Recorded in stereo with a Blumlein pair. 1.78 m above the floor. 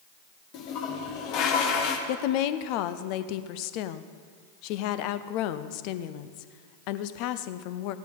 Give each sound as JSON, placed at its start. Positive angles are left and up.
{"t": 0.5, "sound": "a toilet flushing", "azimuth_deg": 40, "distance_m": 1.5}
{"t": 2.1, "sound": "a woman speaking", "azimuth_deg": 45, "distance_m": 0.7}